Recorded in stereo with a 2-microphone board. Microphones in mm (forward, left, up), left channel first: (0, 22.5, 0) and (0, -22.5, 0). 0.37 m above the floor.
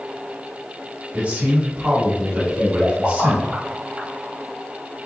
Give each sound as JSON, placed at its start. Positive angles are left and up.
{"t": 1.1, "sound": "a man speaking", "side_deg": -35, "distance_m": 1.6}
{"t": 2.6, "sound": "a pop", "side_deg": -5, "distance_m": 2.0}